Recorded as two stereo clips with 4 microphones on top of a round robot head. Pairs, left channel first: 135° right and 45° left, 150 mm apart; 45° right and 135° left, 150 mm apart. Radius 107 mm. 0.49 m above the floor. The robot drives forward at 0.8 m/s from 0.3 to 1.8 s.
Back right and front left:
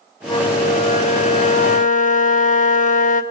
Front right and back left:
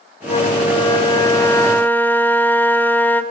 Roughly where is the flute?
Right.